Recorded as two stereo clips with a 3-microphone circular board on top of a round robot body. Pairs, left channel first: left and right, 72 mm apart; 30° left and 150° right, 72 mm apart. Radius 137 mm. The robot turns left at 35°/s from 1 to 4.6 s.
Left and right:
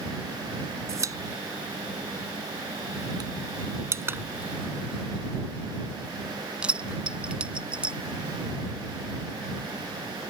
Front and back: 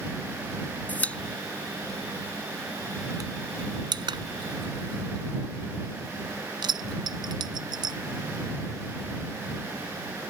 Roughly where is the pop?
Ahead right.